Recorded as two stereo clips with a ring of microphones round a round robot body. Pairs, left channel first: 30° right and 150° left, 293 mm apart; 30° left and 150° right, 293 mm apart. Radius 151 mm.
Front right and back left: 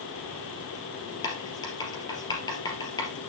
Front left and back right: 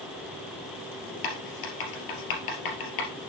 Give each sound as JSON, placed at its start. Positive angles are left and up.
{"t": 1.2, "sound": "writing", "azimuth_deg": 50, "distance_m": 3.0}